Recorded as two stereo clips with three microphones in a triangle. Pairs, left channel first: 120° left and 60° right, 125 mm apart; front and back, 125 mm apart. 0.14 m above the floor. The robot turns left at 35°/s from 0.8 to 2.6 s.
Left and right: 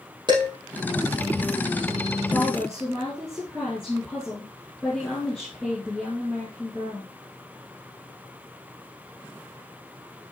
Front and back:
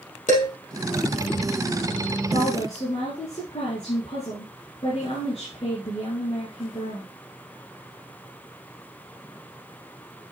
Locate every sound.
0.3 s dishes clattering: 5° right, 3.5 m
2.3 s a woman speaking: 45° left, 4 m; by 7.1 s 35° left, 4 m